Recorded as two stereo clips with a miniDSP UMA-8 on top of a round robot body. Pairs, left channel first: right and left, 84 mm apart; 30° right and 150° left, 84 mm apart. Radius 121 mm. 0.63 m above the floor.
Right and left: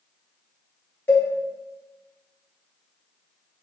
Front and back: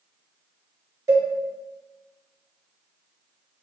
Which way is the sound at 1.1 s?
155° right.